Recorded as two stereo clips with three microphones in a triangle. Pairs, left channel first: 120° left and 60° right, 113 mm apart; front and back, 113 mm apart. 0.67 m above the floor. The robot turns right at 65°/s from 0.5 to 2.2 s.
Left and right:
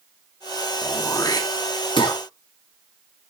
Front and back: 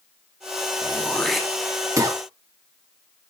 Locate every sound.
0.8 s throat clearing: 55° left, 1.6 m; by 2.2 s 145° left, 1.6 m